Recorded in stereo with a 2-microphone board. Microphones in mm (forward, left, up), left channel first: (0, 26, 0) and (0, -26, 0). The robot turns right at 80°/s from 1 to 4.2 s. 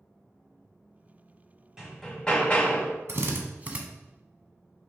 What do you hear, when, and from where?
1.8 s hammering: 15° right, 1.4 m; by 3.0 s 80° left, 1.4 m
3.1 s a drill: 55° right (ahead or behind), 0.8 m; by 3.8 s 20° right (ahead or behind), 0.8 m